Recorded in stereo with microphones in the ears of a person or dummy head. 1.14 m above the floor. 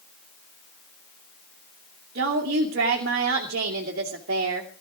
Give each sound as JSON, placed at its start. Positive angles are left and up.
{"t": 2.1, "sound": "a woman speaking", "side_deg": -50, "distance_m": 2.5}